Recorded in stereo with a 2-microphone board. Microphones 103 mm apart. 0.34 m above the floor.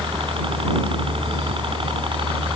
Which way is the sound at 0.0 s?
60° right (ahead or behind).